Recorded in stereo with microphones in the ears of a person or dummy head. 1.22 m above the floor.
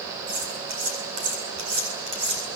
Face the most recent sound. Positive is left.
turn(degrees=-55)  # may be behind; listen again after turning